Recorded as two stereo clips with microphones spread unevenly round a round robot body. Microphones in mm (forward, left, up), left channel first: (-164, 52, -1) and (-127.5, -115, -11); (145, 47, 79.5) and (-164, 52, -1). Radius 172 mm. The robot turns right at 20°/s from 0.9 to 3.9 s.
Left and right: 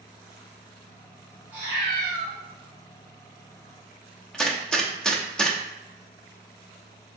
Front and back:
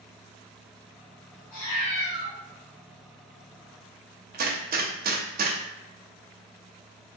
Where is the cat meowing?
10° left, 1.8 m; by 2.3 s 25° left, 1.8 m.